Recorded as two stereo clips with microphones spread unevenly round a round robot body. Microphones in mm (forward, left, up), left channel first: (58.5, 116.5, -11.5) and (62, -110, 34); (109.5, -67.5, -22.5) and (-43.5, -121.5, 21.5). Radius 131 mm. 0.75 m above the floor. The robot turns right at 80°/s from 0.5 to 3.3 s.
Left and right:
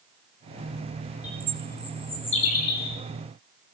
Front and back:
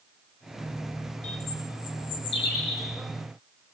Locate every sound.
1.2 s a bird: 30° right, 3 m; by 3.0 s 115° left, 3 m